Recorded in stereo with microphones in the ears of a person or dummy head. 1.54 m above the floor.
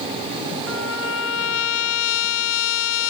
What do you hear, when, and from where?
0.7 s a trumpet: 80° left